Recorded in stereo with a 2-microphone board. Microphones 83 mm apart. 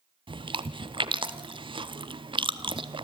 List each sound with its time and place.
0.3 s chewing: 90° right, 0.6 m